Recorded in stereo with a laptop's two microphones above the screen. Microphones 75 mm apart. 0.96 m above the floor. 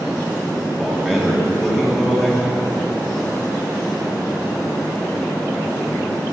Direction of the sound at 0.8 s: 5° right (ahead or behind).